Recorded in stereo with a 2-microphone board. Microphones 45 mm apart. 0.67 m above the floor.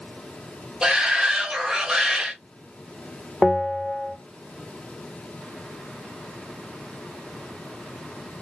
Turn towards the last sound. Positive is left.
turn(degrees=15)  # may be behind; listen again after turning